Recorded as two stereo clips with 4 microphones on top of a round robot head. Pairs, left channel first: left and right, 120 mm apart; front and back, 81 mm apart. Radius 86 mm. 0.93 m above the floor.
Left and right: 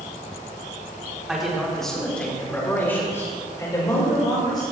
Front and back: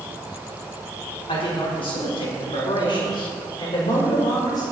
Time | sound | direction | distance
1.3 | a man speaking | 5° right | 3.5 m